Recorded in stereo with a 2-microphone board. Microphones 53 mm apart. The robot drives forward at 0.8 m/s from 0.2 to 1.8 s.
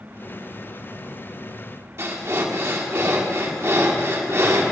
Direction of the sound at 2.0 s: 55° right (ahead or behind).